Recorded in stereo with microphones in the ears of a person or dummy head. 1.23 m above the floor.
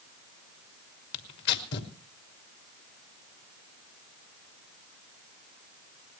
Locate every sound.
1.1 s tearing paper: 60° left (ahead or behind), 2 m